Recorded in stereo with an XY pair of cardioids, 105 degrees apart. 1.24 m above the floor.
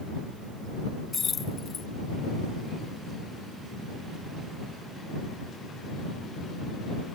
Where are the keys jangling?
35° left.